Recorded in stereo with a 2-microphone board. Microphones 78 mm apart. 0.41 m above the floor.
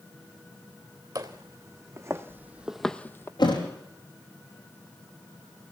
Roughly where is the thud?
Left.